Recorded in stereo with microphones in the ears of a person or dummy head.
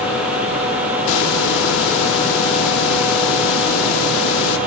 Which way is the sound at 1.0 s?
65° left (ahead or behind).